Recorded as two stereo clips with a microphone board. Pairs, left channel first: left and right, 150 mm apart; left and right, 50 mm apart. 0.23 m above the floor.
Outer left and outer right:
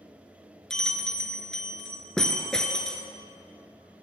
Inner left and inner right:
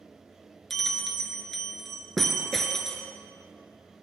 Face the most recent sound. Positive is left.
turn(degrees=5)  # may be behind; listen again after turning